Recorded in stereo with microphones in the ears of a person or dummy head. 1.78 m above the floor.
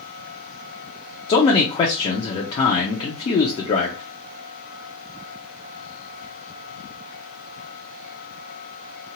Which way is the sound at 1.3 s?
25° left (ahead or behind).